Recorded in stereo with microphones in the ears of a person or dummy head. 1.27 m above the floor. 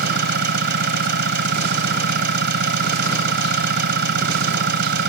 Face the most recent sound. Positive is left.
turn(degrees=-55)  # may be behind; listen again after turning